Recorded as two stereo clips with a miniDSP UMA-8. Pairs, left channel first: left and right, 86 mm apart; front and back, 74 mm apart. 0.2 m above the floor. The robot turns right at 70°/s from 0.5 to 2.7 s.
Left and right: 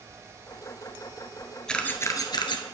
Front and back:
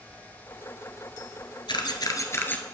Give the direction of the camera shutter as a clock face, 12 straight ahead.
12 o'clock.